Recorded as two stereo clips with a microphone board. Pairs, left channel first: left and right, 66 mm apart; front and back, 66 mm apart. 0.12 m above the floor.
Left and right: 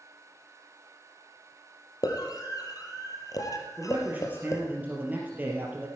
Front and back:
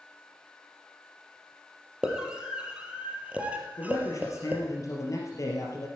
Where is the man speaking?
30° right, 3 m.